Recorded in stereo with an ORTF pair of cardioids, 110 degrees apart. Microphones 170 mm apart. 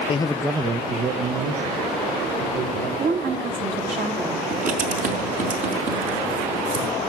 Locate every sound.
0.1 s a man speaking: 35° left, 0.8 m; by 2.9 s 75° right, 3.5 m
3.0 s a woman speaking: 50° right, 3.5 m
4.5 s writing: 50° right, 5 m